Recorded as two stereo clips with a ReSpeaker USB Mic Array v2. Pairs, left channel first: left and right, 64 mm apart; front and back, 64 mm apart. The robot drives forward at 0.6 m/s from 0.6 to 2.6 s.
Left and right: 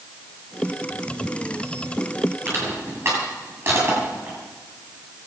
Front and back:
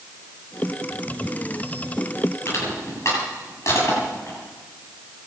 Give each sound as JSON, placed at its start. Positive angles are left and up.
{"t": 2.5, "sound": "crushing", "azimuth_deg": -40, "distance_m": 8.0}